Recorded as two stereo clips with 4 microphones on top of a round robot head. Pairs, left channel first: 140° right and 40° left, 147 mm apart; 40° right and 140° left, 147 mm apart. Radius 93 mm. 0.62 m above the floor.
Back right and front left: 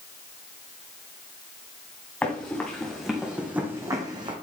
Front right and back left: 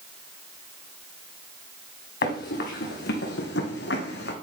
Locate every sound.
2.2 s running footsteps: 60° right, 3 m; by 4.3 s 20° right, 1.8 m